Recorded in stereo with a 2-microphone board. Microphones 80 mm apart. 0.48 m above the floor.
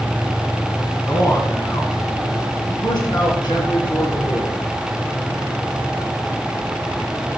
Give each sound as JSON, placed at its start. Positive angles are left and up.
{"t": 1.1, "sound": "a man speaking", "side_deg": 35, "distance_m": 3.5}